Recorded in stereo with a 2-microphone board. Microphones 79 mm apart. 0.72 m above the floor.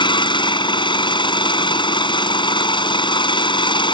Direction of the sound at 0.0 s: 85° left.